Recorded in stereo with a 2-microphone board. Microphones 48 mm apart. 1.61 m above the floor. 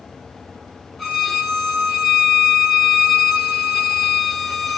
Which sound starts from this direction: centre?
A violin, at 1.0 s.